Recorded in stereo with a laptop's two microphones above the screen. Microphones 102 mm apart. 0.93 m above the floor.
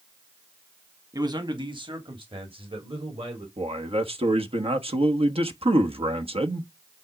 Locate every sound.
1.1 s a man speaking: 40° right (ahead or behind), 1.6 m; by 3.5 s 70° right (ahead or behind), 3.5 m
3.6 s a man speaking: 70° right (ahead or behind), 1.2 m